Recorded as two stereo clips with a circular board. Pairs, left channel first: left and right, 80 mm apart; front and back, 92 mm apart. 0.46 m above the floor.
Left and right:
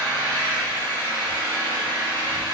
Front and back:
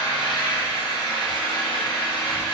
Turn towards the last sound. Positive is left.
turn(degrees=-30)